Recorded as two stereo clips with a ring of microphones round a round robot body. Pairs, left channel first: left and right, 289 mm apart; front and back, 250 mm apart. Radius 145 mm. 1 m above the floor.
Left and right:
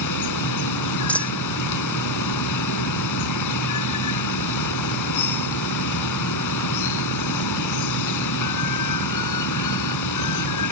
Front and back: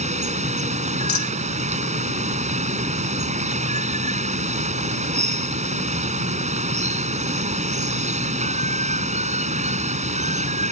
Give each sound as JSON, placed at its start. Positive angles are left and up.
{"t": 0.0, "sound": "running water", "azimuth_deg": 115}
{"t": 1.1, "sound": "a dropped coin", "azimuth_deg": 5}